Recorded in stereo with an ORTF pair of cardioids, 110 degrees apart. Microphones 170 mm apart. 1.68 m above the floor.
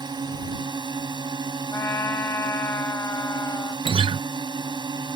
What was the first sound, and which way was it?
A drone, 25° right.